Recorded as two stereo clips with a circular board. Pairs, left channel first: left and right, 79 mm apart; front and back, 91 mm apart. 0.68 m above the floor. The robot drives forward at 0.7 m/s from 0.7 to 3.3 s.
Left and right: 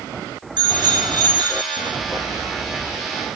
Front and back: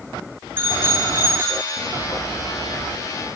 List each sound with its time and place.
0.6 s a bicycle bell: 115° right, 6.5 m; by 1.9 s 120° right, 7 m